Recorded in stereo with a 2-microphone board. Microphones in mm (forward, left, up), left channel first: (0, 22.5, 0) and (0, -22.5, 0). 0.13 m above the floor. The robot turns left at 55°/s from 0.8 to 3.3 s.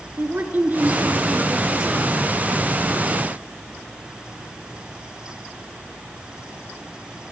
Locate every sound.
0.2 s a woman speaking: 110° right, 2 m; by 2.1 s straight behind, 2 m